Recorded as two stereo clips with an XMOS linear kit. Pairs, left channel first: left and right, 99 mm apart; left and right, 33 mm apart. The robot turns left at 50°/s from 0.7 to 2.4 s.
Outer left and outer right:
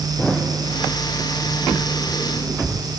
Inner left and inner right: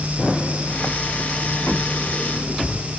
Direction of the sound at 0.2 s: 5° left (ahead or behind).